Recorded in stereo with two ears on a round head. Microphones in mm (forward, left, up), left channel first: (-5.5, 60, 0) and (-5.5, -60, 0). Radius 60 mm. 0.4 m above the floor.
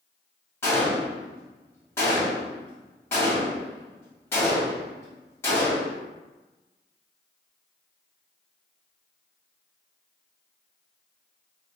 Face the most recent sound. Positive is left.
turn(degrees=20)  # may be behind; listen again after turning